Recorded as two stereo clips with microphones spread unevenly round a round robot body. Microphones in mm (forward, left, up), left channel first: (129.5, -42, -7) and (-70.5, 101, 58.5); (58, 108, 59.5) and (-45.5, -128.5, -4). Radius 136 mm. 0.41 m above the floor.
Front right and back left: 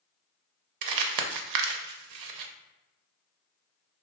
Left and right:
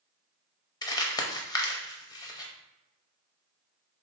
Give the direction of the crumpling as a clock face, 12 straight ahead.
7 o'clock.